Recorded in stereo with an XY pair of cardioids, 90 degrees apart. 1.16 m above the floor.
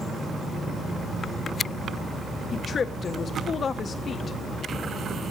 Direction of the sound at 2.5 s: 55° left.